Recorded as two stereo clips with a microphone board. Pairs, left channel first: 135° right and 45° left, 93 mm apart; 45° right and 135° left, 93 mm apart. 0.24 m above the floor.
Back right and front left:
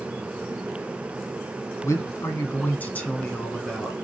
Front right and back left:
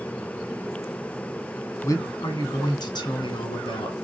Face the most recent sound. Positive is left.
turn(degrees=-50)